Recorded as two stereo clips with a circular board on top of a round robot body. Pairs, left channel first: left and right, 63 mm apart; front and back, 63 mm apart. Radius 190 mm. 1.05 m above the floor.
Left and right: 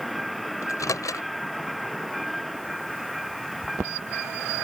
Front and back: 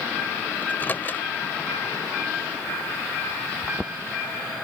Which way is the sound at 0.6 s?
60° left.